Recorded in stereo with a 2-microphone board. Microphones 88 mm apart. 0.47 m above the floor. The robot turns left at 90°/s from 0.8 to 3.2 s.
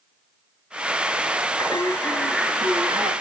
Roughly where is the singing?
Ahead left.